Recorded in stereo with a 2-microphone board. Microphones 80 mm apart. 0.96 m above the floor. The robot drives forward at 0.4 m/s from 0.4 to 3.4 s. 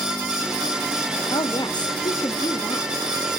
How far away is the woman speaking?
About 1.0 m.